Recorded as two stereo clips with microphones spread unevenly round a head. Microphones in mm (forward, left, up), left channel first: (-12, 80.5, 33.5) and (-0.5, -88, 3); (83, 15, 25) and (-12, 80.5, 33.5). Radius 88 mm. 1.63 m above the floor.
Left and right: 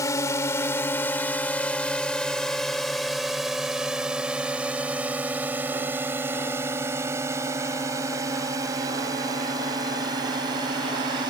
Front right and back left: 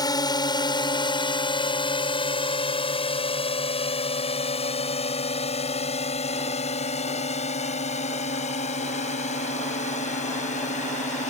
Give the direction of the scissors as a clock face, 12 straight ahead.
I don't hear scissors.